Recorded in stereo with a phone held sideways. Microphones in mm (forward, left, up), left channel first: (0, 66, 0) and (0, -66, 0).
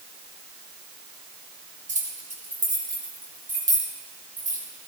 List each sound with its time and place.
1.9 s keys jangling: 75° right (ahead or behind), 4.5 m; by 4.6 s 85° right, 5 m